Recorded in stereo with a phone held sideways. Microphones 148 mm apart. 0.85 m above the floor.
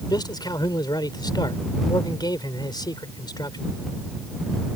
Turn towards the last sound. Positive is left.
turn(degrees=30)  # may be behind; listen again after turning